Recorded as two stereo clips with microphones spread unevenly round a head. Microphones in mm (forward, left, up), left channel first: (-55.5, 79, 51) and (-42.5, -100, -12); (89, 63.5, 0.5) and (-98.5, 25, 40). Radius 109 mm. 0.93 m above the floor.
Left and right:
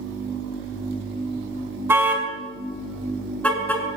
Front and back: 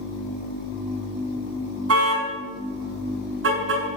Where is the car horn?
165° right, 5 m; by 3.8 s 175° left, 6.5 m.